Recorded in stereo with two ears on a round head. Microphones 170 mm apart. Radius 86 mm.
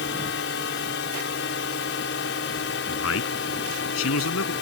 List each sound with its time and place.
0.0 s a drone: 65° left (ahead or behind)
2.9 s a man speaking: 85° left